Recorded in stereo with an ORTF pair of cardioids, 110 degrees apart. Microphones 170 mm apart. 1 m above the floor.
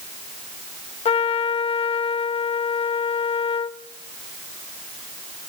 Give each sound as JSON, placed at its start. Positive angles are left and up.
{"t": 1.1, "sound": "a trumpet", "azimuth_deg": 35, "distance_m": 0.8}